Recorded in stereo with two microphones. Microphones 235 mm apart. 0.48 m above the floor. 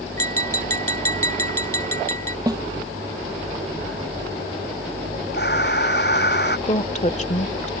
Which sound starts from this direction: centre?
A snare drum, at 2.5 s.